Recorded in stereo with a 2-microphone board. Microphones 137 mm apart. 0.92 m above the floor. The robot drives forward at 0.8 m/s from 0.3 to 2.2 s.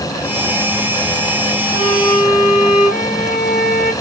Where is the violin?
75° left (ahead or behind), 2.5 m; by 3.9 s 80° left, 2.5 m.